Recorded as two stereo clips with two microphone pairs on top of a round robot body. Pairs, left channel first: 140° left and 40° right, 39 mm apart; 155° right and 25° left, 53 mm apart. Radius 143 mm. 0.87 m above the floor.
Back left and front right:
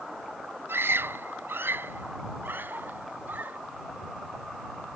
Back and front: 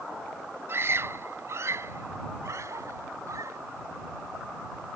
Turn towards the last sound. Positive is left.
turn(degrees=0)